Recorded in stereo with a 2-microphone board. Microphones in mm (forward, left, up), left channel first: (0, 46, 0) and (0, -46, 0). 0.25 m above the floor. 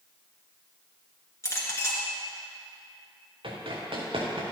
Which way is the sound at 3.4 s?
70° right (ahead or behind).